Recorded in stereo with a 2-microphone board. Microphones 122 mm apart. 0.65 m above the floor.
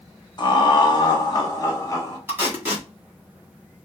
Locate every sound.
0.4 s laughter: 35° left (ahead or behind), 0.9 m; by 2.2 s 25° left (ahead or behind), 1.3 m
2.3 s tape being pulled: 20° right (ahead or behind), 1.5 m